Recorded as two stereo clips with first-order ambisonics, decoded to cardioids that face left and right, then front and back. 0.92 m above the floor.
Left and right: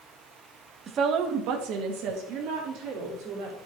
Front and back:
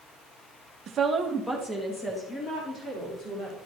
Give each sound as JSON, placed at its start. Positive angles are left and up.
{"t": 0.9, "sound": "a woman speaking", "azimuth_deg": -140, "distance_m": 0.9}